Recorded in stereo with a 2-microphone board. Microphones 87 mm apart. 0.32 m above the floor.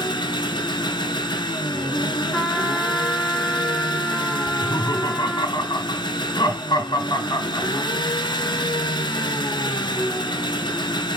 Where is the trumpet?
10° left (ahead or behind), 2 m.